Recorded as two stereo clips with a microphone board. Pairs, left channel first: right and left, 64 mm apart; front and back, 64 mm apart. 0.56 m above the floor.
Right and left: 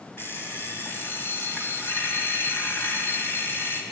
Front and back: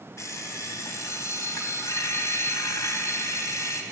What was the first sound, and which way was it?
An alarm clock, 40° right.